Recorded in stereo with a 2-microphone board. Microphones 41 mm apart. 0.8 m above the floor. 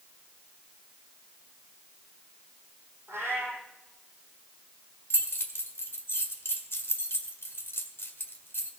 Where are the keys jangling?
80° left, 1.7 m.